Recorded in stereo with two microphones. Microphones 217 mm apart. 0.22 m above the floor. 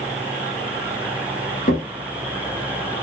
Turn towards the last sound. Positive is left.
turn(degrees=40)  # may be behind; listen again after turning